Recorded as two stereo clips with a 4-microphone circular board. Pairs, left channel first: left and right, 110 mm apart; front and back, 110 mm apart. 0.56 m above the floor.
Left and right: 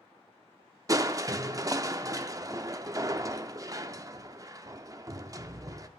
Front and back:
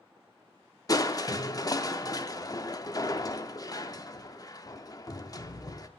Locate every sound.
0.9 s crushing: 45° right, 0.5 m